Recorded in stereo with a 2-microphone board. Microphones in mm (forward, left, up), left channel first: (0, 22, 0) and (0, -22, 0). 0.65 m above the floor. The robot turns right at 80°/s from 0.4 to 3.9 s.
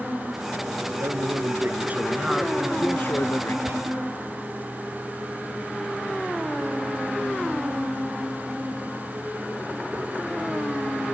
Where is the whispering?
75° right (ahead or behind); by 3.8 s 65° right (ahead or behind).